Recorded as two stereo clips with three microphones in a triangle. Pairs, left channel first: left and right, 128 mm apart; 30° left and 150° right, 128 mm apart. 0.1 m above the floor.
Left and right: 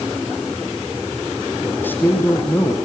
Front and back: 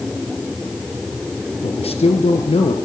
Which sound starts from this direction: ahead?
A man speaking, at 1.6 s.